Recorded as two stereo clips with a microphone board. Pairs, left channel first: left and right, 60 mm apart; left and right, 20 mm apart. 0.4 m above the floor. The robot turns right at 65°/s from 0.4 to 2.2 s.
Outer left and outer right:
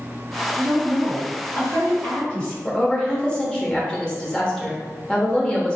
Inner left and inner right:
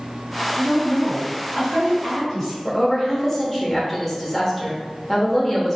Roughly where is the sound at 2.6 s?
Centre.